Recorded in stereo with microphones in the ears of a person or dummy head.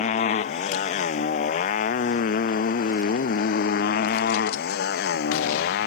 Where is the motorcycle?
45° left (ahead or behind); by 5.9 s 60° left (ahead or behind).